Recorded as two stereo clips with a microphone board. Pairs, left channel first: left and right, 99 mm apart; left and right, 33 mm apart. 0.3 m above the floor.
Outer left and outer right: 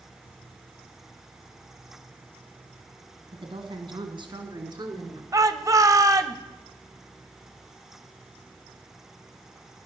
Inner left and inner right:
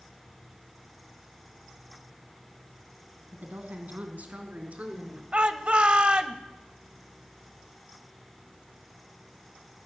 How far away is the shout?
About 1.2 m.